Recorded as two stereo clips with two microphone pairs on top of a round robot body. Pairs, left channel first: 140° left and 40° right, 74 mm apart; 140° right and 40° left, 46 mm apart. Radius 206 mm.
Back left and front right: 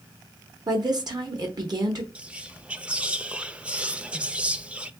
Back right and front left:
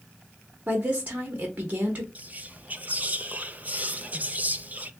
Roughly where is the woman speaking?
Ahead.